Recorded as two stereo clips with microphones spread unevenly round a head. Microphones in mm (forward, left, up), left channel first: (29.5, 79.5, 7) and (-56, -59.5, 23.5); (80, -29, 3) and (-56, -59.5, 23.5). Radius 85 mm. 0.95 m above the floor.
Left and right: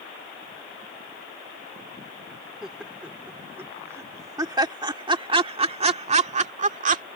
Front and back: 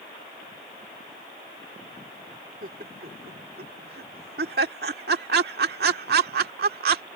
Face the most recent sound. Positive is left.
turn(degrees=-160)